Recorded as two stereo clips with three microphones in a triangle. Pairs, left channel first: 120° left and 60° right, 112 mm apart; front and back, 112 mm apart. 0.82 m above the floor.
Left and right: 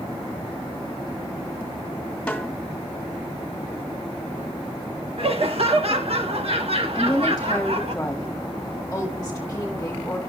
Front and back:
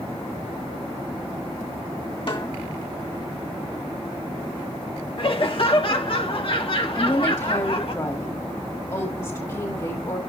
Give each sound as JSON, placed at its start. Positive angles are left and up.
{"t": 2.3, "sound": "a snare drum", "azimuth_deg": 40, "distance_m": 1.9}
{"t": 5.2, "sound": "laughter", "azimuth_deg": -35, "distance_m": 1.4}
{"t": 7.0, "sound": "a woman speaking", "azimuth_deg": 50, "distance_m": 1.5}